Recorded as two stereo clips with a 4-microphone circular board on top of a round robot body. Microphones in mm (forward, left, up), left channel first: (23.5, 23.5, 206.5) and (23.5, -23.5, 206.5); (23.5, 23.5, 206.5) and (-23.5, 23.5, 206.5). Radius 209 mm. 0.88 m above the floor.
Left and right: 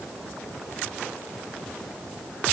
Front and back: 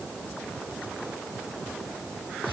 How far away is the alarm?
No alarm in this recording.